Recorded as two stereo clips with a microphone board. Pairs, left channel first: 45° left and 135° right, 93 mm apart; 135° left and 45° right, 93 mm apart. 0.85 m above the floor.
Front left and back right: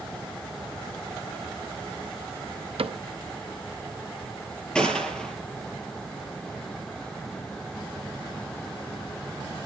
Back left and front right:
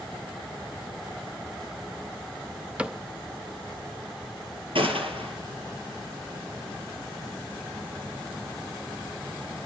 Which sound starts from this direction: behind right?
A cupboard door, at 2.8 s.